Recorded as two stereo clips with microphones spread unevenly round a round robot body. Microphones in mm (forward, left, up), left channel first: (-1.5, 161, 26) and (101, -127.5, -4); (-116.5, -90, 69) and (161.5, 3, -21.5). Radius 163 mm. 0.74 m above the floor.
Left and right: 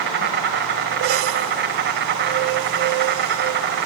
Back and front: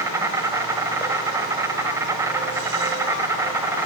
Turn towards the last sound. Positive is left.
turn(degrees=-40)